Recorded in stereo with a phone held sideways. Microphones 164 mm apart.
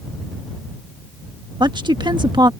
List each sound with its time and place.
1.6 s a woman speaking: 25° right (ahead or behind)